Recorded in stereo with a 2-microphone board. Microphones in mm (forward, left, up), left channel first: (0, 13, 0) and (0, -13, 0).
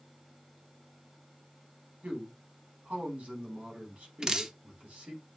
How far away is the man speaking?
About 4.5 m.